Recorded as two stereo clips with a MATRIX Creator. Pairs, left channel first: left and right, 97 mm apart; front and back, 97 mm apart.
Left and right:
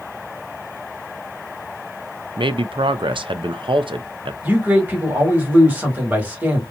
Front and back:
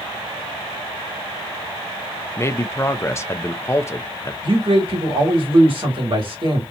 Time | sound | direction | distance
2.4 | a man speaking | 60° right | 0.5 m
4.4 | a man speaking | 160° right | 2 m